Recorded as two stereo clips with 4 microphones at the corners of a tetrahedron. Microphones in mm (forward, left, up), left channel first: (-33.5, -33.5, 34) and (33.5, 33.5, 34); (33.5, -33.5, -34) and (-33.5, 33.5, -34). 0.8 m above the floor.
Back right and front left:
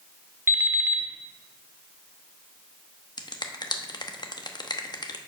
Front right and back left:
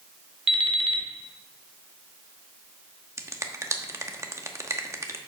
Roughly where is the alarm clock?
Left.